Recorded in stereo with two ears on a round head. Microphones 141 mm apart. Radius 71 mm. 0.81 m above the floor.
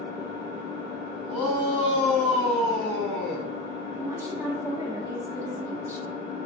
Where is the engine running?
40° right (ahead or behind), 1.9 m.